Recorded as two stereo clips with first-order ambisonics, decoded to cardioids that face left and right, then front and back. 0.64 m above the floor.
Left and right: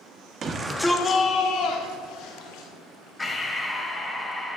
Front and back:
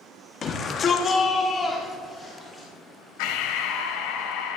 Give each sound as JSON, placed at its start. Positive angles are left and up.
{"t": 0.4, "sound": "a shout", "azimuth_deg": -50, "distance_m": 1.1}
{"t": 3.2, "sound": "breathing", "azimuth_deg": 5, "distance_m": 1.3}